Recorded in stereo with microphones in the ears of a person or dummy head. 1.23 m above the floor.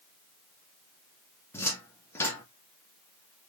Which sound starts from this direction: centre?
A cupboard door, at 1.5 s.